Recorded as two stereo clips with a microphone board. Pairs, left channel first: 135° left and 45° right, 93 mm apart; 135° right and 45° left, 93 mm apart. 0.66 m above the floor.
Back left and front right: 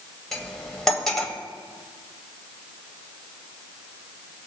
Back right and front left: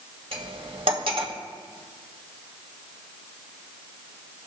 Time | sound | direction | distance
0.3 | cutlery clinking | 50° left | 2.0 m